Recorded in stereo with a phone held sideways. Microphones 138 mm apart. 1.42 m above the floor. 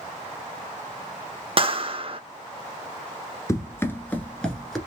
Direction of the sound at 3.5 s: 20° left (ahead or behind).